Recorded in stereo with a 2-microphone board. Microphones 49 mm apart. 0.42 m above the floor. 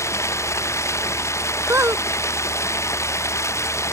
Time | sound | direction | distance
0.0 | running water | 85° left | ?
1.7 | a squeak | 70° right (ahead or behind) | ?